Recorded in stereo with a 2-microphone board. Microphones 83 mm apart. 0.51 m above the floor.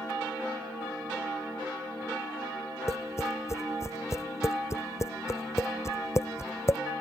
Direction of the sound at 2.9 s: 35° left (ahead or behind).